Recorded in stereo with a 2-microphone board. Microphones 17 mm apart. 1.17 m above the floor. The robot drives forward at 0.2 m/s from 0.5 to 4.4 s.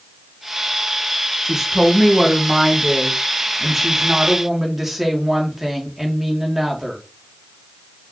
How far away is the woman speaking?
About 0.9 m.